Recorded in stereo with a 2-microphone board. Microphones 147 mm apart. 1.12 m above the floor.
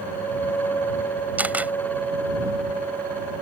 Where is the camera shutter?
10° right (ahead or behind).